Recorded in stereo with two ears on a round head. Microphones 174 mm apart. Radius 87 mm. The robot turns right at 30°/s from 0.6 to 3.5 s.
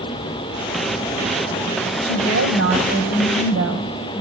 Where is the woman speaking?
115° right, 5.5 m; by 4.2 s 75° right, 5.5 m.